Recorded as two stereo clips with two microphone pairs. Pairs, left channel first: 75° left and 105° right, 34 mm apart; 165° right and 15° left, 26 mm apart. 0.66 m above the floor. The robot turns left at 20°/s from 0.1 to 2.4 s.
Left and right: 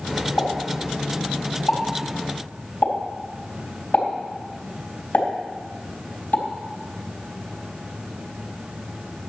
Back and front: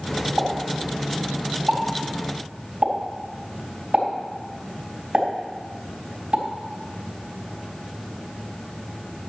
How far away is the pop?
About 4 m.